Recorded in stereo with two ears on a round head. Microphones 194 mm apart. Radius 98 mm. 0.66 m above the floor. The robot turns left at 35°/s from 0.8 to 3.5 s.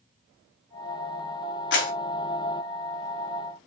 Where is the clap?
60° left (ahead or behind), 3.5 m; by 1.9 s 65° left (ahead or behind), 3.5 m.